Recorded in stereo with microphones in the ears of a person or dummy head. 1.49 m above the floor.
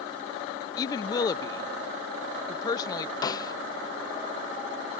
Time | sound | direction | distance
0.8 | a woman speaking | 25° left (ahead or behind) | ?
3.2 | a snare drum | 25° left (ahead or behind) | ?